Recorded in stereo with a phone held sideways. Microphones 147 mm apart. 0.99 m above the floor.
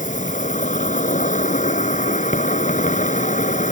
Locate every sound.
0.0 s an insect: 60° left (ahead or behind)